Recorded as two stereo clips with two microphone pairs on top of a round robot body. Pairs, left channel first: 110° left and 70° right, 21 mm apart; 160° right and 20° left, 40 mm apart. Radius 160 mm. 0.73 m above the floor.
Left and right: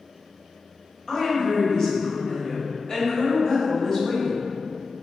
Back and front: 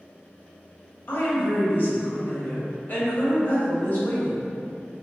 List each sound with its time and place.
1.1 s a woman speaking: straight behind, 1.3 m